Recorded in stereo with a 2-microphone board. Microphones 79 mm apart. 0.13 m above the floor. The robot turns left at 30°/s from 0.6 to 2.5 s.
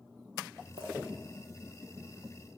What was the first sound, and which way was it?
A clink, 75° right (ahead or behind).